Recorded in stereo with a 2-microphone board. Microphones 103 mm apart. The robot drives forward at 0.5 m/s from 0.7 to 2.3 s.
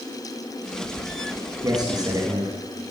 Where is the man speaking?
40° right (ahead or behind), 1.8 m; by 2.5 s 35° right (ahead or behind), 1.9 m.